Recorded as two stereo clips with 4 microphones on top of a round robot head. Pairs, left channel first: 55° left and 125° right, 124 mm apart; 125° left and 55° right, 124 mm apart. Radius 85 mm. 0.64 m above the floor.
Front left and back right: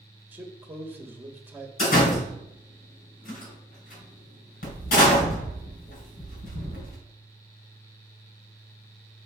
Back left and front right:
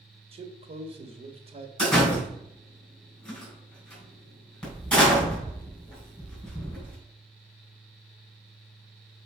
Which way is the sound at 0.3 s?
50° right.